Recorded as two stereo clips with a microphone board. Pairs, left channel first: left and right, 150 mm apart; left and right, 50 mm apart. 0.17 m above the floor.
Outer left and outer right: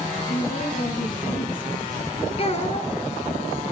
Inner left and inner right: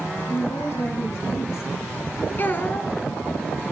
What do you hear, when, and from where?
0.3 s a woman speaking: 70° left (ahead or behind), 7.5 m
2.4 s a child speaking: 45° left (ahead or behind), 1.3 m